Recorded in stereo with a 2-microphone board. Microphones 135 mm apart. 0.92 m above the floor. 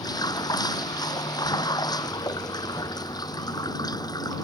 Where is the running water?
30° left (ahead or behind).